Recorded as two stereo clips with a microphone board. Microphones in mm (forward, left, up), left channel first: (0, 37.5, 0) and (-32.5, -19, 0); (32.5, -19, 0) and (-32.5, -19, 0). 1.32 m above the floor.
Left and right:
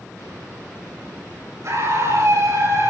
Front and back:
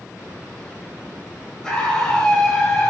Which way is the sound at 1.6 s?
80° right.